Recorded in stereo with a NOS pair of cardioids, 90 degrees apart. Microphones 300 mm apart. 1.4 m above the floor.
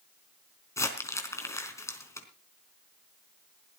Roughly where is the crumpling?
Ahead.